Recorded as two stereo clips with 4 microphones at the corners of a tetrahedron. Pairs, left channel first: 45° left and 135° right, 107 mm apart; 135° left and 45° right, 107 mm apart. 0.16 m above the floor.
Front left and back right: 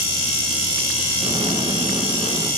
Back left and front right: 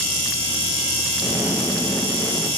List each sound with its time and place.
1.2 s an explosion: 125° right, 1.8 m